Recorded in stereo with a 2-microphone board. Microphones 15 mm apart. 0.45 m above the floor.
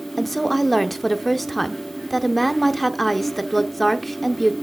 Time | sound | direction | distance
0.2 | a woman speaking | 15° left (ahead or behind) | 0.7 m